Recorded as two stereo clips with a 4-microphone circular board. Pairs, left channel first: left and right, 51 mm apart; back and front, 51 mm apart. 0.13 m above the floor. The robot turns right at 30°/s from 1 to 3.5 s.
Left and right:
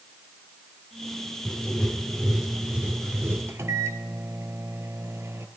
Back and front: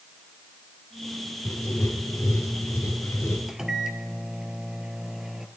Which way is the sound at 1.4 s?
160° left.